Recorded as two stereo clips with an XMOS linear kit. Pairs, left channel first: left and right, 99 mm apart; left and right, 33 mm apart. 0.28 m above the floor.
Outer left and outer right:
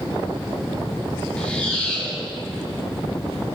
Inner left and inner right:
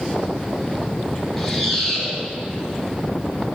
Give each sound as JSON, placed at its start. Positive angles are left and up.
{"t": 1.4, "sound": "a squeak", "side_deg": 15, "distance_m": 3.0}